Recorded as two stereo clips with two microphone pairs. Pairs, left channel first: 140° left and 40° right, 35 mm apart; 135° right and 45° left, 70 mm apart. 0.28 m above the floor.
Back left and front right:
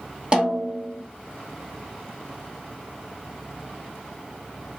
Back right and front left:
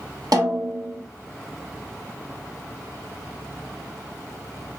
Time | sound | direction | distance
0.3 | a snare drum | 25° left | 1.2 m